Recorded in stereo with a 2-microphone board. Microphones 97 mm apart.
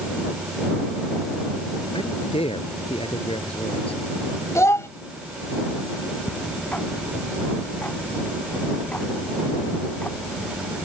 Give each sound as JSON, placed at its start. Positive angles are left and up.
{"t": 1.9, "sound": "a man speaking", "side_deg": 75}
{"t": 4.5, "sound": "a child speaking", "side_deg": 30}
{"t": 6.3, "sound": "ticking", "side_deg": 15}